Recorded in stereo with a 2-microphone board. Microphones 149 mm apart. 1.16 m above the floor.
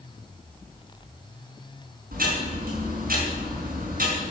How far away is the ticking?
About 5.5 m.